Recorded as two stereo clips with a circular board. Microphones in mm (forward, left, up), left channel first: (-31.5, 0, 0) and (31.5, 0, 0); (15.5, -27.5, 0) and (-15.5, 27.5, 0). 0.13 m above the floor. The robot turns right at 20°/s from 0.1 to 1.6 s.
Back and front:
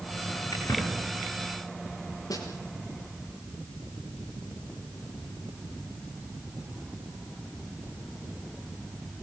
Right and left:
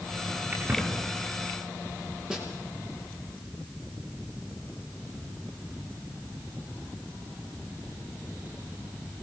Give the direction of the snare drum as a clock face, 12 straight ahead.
5 o'clock.